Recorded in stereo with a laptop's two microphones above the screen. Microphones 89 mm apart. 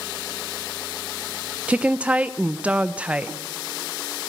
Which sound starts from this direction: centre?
A woman speaking, at 1.7 s.